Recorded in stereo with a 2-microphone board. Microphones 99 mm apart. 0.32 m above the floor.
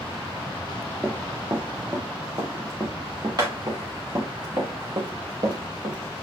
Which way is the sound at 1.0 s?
25° right (ahead or behind).